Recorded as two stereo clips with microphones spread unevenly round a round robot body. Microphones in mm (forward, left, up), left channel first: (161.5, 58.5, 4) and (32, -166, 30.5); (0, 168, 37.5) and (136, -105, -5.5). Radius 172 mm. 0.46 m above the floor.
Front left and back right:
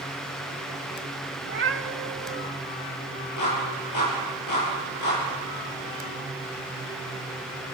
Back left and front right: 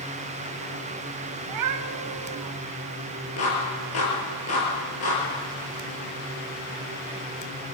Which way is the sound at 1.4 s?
75° right.